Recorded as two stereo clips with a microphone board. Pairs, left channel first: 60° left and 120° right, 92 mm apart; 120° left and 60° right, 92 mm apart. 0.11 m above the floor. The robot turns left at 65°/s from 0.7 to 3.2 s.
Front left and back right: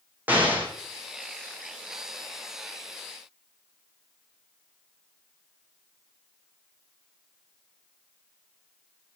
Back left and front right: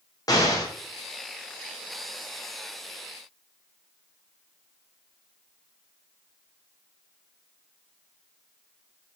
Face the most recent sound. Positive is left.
turn(degrees=5)